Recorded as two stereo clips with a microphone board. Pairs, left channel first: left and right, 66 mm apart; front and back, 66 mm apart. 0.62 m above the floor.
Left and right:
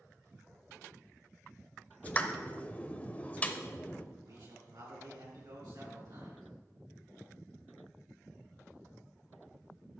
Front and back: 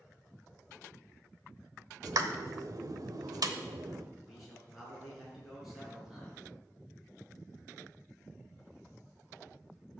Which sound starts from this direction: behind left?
A pop, at 2.0 s.